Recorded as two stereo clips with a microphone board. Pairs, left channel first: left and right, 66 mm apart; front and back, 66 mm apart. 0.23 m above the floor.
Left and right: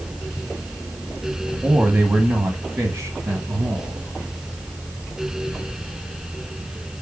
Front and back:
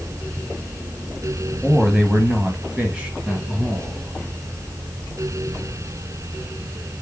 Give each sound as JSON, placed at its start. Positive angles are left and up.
{"t": 1.6, "sound": "a man speaking", "azimuth_deg": -105, "distance_m": 1.0}